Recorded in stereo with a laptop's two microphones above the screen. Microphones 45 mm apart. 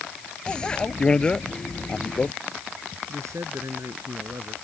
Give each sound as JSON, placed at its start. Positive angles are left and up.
{"t": 0.5, "sound": "a bicycle bell", "side_deg": 20}
{"t": 3.1, "sound": "a man speaking", "side_deg": -80}